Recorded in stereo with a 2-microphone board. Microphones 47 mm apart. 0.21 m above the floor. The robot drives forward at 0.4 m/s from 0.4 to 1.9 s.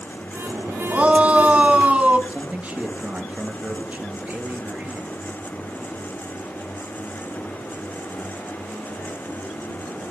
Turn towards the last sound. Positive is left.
turn(degrees=-30)  # may be behind; listen again after turning